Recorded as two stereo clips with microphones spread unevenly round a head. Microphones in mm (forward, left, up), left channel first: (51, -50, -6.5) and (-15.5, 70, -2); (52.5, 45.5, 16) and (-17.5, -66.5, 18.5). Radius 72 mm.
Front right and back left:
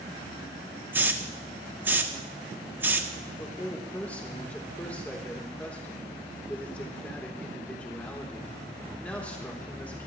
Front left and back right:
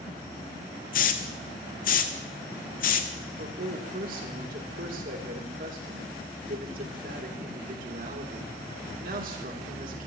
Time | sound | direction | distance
0.9 | a hiss | 45° left | 1.3 m
3.4 | a man speaking | 140° right | 3 m